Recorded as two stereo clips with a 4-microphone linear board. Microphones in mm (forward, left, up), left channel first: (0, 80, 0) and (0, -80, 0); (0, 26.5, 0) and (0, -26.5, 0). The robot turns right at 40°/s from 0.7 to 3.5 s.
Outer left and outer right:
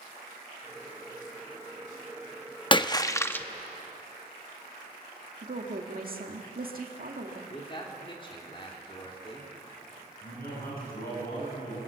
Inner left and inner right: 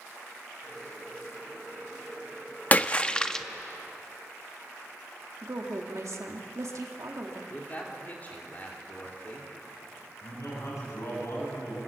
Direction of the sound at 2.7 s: 30° left (ahead or behind).